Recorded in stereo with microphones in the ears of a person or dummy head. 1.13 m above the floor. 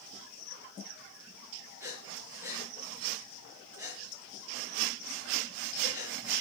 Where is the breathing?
10° right (ahead or behind), 5.5 m.